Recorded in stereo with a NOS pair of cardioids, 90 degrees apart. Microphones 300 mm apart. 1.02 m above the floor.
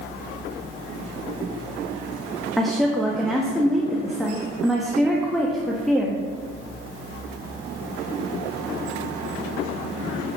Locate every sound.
2.6 s a woman speaking: straight ahead, 1.2 m